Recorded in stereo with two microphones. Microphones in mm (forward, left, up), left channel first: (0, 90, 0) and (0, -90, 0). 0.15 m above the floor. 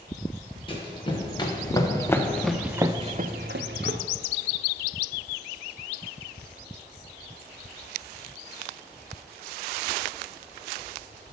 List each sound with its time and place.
0.7 s running footsteps: 30° left (ahead or behind), 2 m; by 4.0 s 80° right, 0.9 m